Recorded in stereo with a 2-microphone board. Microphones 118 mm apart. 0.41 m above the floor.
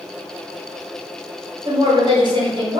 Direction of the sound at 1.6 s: 40° right (ahead or behind).